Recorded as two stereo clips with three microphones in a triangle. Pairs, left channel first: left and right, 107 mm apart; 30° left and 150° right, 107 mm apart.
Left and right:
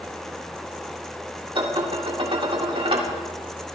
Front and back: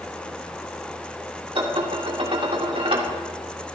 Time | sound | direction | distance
1.6 | dishes clattering | 125° right | 2.5 m